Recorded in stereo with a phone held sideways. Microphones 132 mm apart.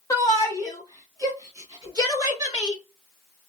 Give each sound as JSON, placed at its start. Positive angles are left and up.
{"t": 0.1, "sound": "a shout", "side_deg": 25, "distance_m": 1.6}